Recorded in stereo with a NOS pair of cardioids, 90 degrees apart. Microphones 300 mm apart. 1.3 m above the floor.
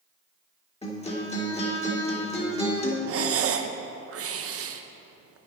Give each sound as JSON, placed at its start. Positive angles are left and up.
{"t": 0.8, "sound": "a guitar", "azimuth_deg": 20, "distance_m": 3.0}
{"t": 3.1, "sound": "breathing", "azimuth_deg": -50, "distance_m": 0.8}